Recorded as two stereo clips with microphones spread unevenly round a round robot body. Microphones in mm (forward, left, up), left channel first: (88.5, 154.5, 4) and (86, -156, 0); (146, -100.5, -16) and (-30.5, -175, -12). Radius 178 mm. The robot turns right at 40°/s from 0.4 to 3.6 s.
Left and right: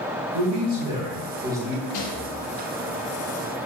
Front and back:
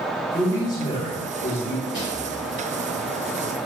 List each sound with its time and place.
0.3 s a man speaking: 60° right, 3 m; by 1.8 s straight ahead, 3 m
1.9 s a rattle: 65° left, 2.5 m; by 2.3 s 80° left, 2.5 m